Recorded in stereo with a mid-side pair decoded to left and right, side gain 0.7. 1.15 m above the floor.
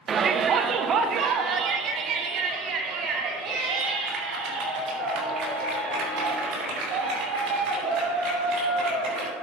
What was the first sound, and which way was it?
A shout, 30° right.